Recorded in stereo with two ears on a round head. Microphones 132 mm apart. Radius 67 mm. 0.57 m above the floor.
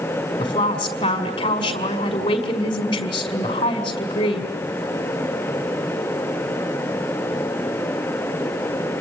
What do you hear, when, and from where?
0.4 s a woman speaking: 30° left (ahead or behind), 5.5 m